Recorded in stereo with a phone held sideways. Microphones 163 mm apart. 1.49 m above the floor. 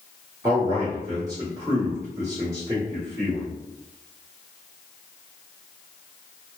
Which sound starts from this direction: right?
A man speaking, at 0.4 s.